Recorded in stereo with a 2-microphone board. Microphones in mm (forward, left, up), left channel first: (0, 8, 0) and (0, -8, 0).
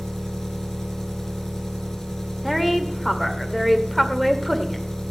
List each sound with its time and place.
0.0 s an engine running: 30° left (ahead or behind), 2 m
2.4 s a woman speaking: centre (ahead or behind), 1.9 m